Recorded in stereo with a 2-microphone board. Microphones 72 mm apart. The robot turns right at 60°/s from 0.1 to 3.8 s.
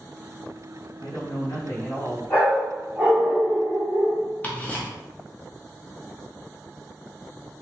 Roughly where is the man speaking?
Left.